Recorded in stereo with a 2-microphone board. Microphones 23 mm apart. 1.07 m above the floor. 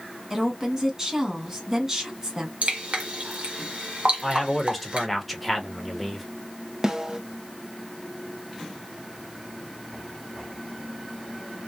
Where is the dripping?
65° right (ahead or behind), 1.1 m.